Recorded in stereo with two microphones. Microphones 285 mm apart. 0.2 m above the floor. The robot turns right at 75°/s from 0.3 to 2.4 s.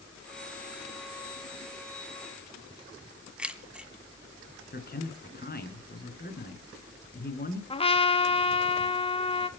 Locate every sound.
3.4 s keys jangling: 5° right (ahead or behind), 1.3 m
4.7 s a man speaking: 35° left (ahead or behind), 3 m
7.7 s a trumpet: 20° left (ahead or behind), 0.9 m